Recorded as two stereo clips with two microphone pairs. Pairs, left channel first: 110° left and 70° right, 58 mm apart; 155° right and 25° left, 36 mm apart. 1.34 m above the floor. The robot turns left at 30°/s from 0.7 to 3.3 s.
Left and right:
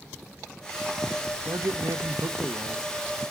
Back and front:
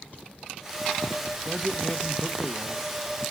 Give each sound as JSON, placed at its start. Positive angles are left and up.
{"t": 1.4, "sound": "a man speaking", "azimuth_deg": -65, "distance_m": 1.0}